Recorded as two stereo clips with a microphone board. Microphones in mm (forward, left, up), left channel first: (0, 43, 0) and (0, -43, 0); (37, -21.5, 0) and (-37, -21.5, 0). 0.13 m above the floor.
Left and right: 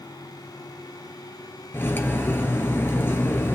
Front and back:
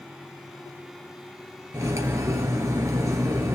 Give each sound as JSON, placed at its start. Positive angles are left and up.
{"t": 1.7, "sound": "cutlery clinking", "azimuth_deg": 150, "distance_m": 1.1}